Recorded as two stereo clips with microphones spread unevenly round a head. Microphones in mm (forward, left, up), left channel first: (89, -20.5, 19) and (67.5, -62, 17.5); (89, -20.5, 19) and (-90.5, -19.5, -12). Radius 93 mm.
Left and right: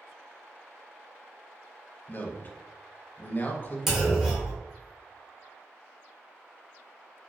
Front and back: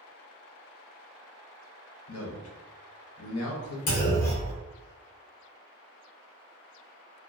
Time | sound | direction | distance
2.1 | a man speaking | 10° left | 0.7 m
3.9 | a clunk | 35° right | 1.1 m